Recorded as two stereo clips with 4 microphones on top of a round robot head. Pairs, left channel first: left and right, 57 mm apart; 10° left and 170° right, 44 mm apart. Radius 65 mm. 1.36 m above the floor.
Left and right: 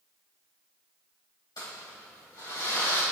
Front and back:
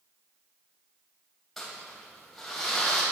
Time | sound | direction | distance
1.6 | crumpling | 90° left | 3 m